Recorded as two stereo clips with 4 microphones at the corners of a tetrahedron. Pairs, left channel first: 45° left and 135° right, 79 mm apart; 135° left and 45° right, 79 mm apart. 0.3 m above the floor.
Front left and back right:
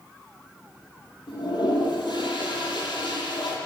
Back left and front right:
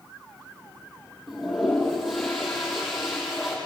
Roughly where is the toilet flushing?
Ahead left.